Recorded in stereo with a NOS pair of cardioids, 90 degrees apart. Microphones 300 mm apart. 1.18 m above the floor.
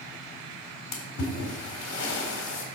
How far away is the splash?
About 3.5 m.